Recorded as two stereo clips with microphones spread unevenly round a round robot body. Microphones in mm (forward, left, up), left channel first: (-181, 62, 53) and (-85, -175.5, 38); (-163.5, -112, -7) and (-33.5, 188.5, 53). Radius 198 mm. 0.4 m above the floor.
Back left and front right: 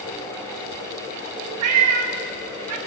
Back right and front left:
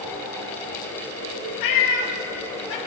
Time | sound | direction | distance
1.6 | a cat meowing | 70° right | 1.0 m